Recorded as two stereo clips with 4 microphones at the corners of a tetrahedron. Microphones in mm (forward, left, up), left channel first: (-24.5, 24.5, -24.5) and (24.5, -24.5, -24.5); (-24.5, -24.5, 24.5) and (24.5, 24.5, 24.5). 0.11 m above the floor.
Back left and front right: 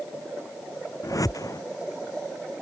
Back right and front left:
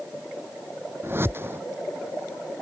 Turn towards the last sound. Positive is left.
turn(degrees=100)